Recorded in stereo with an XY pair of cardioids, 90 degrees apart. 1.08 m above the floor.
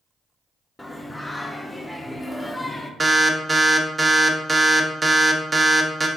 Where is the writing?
I don't hear writing.